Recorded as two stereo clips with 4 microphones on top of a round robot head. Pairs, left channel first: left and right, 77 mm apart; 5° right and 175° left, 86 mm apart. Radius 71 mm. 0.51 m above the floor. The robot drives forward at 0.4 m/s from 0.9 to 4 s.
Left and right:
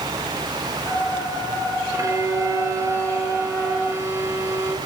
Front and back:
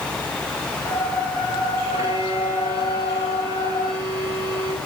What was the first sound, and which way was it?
A violin, 135° right.